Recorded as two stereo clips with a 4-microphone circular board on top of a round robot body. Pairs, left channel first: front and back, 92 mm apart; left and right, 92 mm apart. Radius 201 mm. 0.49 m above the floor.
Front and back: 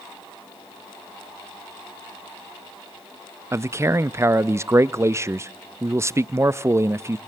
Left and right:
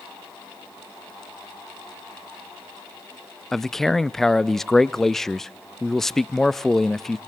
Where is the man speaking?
175° left, 0.7 m.